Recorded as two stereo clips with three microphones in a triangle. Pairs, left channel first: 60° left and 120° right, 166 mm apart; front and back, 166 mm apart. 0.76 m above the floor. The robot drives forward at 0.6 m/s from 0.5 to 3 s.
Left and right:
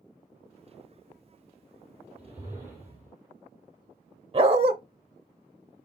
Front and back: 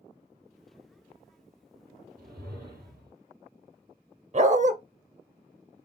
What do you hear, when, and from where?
2.2 s a whoosh: 160° left, 3.5 m; by 3.1 s 165° left, 4 m
4.3 s a dog barking: 160° right, 0.6 m